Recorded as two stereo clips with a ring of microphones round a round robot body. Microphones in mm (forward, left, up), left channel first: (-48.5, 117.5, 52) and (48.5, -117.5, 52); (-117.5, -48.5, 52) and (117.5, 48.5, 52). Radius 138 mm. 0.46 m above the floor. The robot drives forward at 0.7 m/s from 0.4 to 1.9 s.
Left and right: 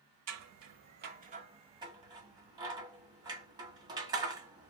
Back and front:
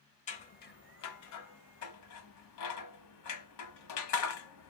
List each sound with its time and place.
0.3 s scissors: 95° right, 0.8 m; by 4.7 s 145° right, 1.4 m